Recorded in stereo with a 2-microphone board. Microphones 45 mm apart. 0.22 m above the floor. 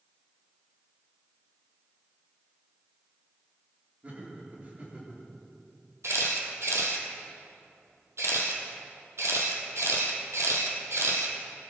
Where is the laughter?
35° right (ahead or behind), 4.5 m.